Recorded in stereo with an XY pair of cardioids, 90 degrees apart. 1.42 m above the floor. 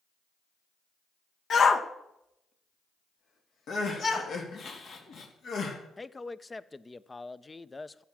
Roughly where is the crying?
Ahead left.